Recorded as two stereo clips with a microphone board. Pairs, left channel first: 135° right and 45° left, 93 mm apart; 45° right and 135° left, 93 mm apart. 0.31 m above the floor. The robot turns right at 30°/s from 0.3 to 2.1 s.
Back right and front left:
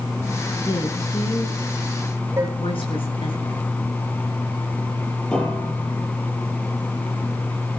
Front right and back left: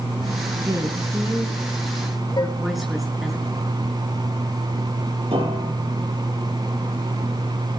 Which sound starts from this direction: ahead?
Dishes clattering, at 2.4 s.